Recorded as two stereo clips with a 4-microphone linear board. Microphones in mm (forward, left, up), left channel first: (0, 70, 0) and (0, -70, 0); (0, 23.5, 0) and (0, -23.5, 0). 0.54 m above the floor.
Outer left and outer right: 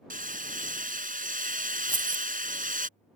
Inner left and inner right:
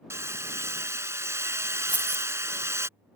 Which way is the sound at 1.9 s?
35° right (ahead or behind).